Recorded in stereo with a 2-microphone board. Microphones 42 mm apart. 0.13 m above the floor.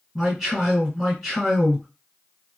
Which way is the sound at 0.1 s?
Centre (ahead or behind).